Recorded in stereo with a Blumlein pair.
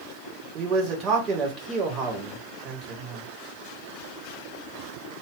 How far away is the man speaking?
About 1.3 m.